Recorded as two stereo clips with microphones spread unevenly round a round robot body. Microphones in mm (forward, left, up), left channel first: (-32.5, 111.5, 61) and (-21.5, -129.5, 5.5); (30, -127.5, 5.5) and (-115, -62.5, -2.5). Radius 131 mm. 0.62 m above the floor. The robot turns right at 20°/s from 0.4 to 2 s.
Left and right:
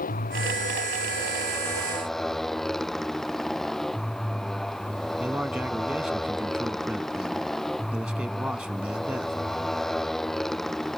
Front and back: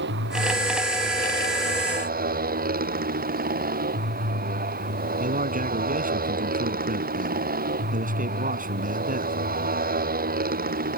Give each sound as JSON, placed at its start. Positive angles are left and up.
{"t": 0.0, "sound": "a motorcycle", "azimuth_deg": 150}
{"t": 5.2, "sound": "a man speaking", "azimuth_deg": -175}